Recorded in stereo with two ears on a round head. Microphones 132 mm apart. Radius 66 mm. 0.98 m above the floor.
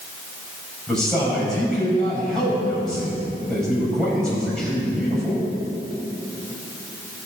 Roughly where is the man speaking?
Centre.